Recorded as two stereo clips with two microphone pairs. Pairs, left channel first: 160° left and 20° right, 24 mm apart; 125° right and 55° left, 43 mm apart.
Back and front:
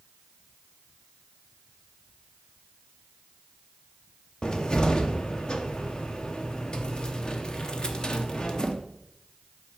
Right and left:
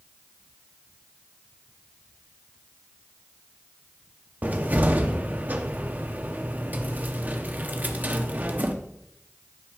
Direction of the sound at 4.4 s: 105° left.